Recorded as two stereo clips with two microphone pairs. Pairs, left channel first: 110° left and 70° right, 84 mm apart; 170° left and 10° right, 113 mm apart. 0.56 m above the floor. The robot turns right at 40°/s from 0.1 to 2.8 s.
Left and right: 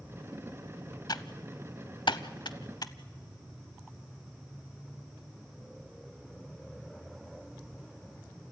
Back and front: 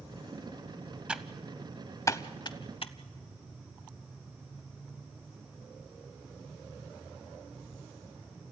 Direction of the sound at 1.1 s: 70° left.